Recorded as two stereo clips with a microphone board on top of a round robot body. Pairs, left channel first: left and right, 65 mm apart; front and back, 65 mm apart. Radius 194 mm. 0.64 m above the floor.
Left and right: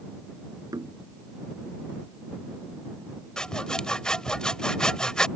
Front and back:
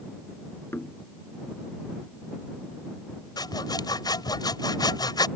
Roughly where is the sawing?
Ahead.